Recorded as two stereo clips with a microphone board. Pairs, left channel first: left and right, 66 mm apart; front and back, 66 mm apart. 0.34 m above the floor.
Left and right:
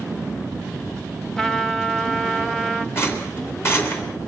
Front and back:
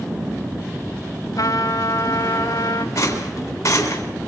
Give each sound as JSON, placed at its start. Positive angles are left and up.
{"t": 1.4, "sound": "a trumpet", "azimuth_deg": 10, "distance_m": 0.9}
{"t": 3.0, "sound": "a rattle", "azimuth_deg": 40, "distance_m": 3.5}